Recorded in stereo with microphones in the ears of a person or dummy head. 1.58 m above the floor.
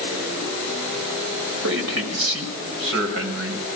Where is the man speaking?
70° right (ahead or behind), 6 m.